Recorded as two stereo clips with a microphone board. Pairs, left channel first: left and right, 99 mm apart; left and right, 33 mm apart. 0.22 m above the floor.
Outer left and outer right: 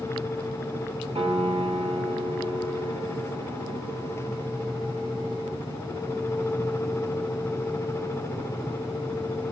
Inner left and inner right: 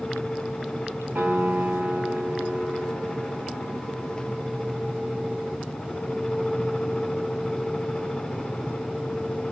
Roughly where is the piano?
Right.